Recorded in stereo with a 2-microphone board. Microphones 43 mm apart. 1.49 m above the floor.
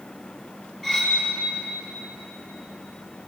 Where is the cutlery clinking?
10° right (ahead or behind), 6.5 m.